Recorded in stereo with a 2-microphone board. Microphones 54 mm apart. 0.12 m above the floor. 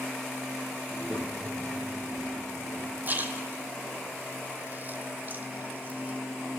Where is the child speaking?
30° right (ahead or behind), 2 m; by 3.0 s 25° left (ahead or behind), 4 m.